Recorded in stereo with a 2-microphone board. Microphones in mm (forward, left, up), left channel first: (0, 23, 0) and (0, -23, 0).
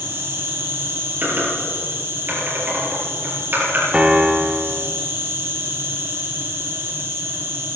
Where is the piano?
25° right (ahead or behind), 1.0 m.